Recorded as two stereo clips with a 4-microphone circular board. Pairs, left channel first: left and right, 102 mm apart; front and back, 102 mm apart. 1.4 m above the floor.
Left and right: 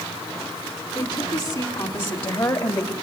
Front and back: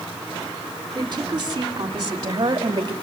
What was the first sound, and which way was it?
A woman speaking, 135° left.